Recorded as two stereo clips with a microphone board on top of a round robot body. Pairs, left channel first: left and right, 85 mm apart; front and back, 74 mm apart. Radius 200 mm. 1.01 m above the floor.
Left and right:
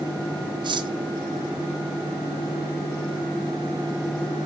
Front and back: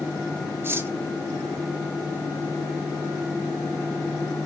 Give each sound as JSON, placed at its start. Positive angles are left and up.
{"t": 0.6, "sound": "cutlery clinking", "azimuth_deg": -120, "distance_m": 0.8}